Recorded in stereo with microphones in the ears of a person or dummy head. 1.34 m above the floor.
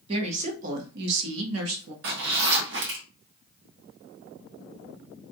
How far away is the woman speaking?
About 1.4 m.